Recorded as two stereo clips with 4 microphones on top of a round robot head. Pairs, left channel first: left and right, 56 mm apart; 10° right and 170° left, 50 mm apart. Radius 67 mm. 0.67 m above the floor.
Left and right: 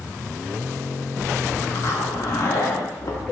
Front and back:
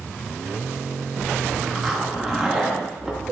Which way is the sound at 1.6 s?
85° left.